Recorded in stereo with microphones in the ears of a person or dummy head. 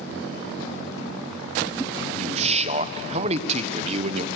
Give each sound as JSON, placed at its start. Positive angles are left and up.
{"t": 2.2, "sound": "a man speaking", "side_deg": -35, "distance_m": 1.1}